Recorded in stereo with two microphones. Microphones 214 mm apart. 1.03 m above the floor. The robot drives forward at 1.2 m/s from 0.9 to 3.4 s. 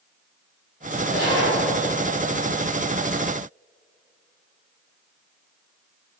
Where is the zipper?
85° left, 3 m; by 1.6 s 75° left (ahead or behind), 3 m.